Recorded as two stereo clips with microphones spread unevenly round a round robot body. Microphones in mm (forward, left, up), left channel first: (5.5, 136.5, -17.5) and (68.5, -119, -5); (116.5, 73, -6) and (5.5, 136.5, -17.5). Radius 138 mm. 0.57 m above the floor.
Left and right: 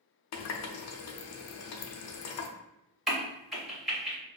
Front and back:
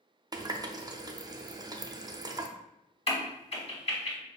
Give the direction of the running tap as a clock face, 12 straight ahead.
9 o'clock.